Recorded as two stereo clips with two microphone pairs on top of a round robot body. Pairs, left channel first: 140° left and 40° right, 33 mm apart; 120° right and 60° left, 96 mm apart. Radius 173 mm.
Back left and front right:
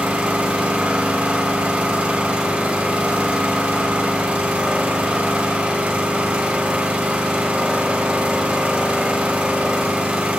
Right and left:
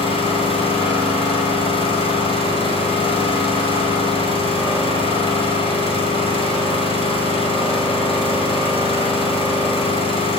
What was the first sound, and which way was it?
An engine running, 95° right.